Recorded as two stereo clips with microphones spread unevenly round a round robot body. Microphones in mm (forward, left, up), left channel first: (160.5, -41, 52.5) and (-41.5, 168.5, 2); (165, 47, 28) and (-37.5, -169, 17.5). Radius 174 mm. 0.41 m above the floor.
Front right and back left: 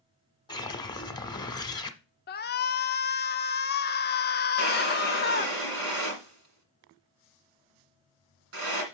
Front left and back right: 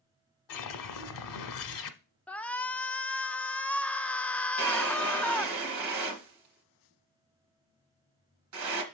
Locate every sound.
0.5 s a whoosh: 30° left, 1.2 m
2.3 s a shout: 35° right, 0.7 m
4.6 s a drawer: 175° right, 1.9 m